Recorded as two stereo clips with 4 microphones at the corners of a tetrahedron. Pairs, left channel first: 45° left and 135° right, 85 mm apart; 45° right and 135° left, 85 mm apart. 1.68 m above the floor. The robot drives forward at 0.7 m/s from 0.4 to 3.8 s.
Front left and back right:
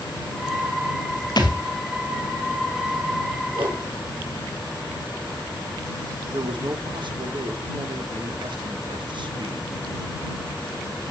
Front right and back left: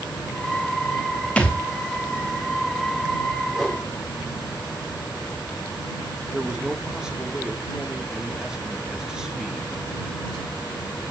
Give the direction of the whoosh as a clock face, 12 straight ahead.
5 o'clock.